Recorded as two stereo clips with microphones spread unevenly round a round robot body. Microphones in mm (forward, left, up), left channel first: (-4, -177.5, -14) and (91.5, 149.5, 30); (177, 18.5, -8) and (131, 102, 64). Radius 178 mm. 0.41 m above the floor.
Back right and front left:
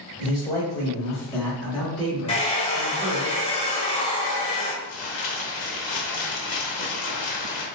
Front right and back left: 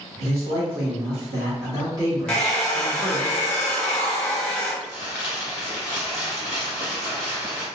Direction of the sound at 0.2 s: 165° right.